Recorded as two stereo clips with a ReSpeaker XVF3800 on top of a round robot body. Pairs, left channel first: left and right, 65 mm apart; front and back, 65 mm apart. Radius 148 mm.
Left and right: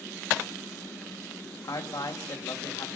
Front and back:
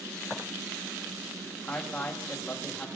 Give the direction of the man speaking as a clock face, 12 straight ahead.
10 o'clock.